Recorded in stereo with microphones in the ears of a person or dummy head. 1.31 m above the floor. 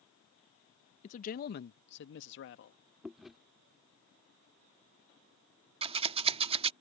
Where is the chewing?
Centre (ahead or behind).